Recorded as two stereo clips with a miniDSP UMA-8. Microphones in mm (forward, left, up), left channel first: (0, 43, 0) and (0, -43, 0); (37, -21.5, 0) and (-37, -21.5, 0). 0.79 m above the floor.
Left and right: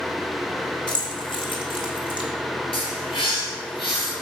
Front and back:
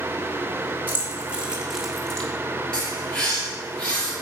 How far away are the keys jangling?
About 1.7 m.